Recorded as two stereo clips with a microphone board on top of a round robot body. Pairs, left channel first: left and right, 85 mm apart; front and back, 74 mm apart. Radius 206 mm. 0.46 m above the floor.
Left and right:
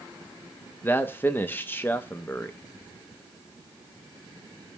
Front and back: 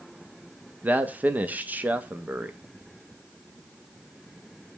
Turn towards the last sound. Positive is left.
turn(degrees=135)